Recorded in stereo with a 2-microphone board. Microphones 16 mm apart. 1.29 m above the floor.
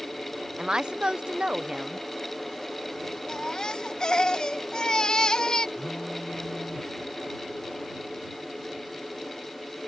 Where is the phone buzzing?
65° left (ahead or behind).